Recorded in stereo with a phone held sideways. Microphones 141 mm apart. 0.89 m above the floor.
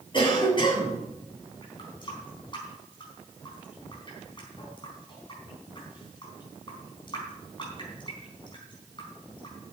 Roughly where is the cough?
Left.